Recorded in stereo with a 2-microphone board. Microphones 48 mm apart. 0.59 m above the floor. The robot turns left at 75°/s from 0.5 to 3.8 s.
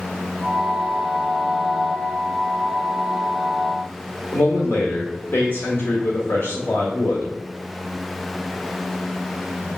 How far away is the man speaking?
About 1.7 m.